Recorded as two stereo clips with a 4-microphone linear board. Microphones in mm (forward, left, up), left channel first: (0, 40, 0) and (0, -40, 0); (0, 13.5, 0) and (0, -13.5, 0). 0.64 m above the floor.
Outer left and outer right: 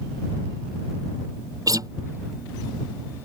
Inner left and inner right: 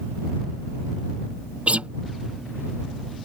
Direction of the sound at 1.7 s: 50° right (ahead or behind).